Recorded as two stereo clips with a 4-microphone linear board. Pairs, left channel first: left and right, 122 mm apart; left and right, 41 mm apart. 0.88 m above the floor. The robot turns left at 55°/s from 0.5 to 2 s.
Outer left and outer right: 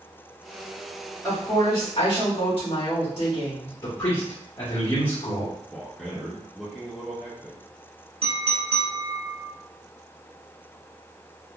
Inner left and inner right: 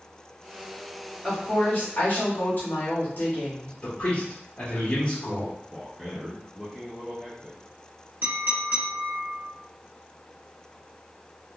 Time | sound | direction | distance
1.2 | a woman speaking | 165° left | 1.9 m
3.8 | a man speaking | 40° left (ahead or behind) | 1.4 m
5.7 | a man speaking | centre (ahead or behind) | 0.8 m
8.2 | a clink | 50° right (ahead or behind) | 0.9 m